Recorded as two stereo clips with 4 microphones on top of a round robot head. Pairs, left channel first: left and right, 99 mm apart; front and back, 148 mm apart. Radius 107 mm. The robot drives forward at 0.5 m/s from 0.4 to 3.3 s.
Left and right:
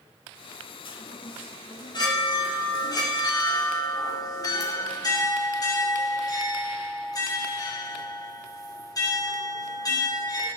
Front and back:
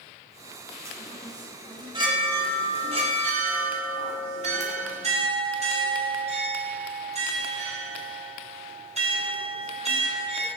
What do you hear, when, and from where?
0.8 s a chime: 110° left, 2.0 m; by 10.5 s 140° left, 2.5 m